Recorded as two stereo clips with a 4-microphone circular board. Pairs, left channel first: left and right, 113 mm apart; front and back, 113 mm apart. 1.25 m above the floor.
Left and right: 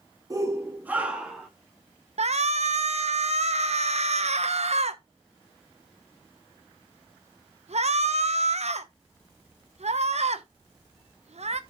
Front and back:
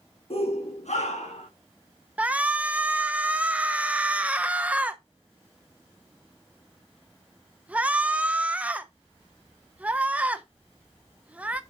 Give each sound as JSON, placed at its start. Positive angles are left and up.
{"t": 0.3, "sound": "a shout", "azimuth_deg": -30, "distance_m": 1.4}
{"t": 2.2, "sound": "a shout", "azimuth_deg": -105, "distance_m": 1.0}